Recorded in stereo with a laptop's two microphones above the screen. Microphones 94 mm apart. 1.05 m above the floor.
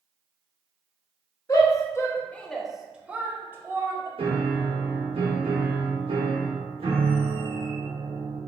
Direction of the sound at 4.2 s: 75° right (ahead or behind).